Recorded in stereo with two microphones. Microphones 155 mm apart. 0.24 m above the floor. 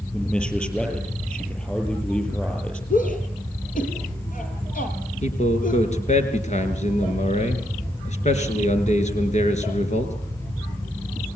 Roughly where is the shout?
Left.